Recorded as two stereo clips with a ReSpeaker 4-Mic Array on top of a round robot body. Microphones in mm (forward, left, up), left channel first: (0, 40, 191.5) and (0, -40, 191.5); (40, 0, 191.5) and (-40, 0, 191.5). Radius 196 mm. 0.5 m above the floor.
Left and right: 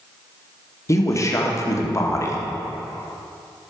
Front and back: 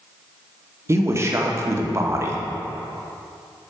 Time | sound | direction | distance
0.9 | a man speaking | 130° left | 1.8 m